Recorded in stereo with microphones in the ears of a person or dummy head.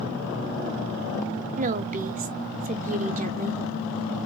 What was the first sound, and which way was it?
A woman speaking, 40° right (ahead or behind).